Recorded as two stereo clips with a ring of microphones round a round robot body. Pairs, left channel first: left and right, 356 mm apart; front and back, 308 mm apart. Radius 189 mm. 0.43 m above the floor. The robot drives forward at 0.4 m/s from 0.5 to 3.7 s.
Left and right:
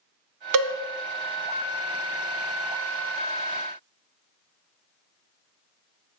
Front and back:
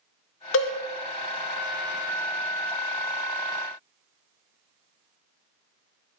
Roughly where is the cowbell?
Ahead right.